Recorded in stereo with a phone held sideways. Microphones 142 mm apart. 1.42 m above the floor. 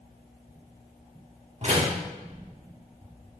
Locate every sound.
1.6 s a door slam: 50° right (ahead or behind), 2 m